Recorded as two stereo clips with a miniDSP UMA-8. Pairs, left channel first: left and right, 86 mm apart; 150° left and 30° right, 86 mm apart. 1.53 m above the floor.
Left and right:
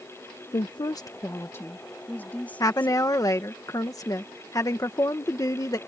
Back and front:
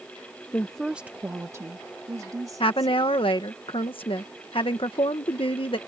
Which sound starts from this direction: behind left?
A woman speaking, at 2.6 s.